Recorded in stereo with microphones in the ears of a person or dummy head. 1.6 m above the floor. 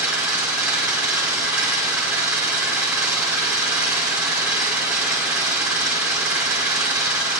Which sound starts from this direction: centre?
An engine running, at 0.0 s.